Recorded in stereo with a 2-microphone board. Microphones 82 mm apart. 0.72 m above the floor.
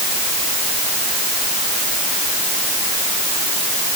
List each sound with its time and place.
Only background noise.